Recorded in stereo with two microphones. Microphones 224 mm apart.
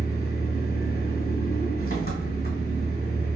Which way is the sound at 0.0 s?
40° left (ahead or behind).